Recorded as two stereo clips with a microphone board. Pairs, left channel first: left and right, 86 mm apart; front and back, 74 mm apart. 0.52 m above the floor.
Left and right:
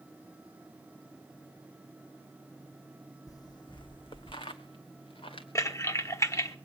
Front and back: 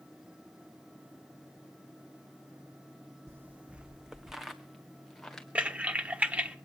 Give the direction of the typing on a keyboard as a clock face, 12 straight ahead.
8 o'clock.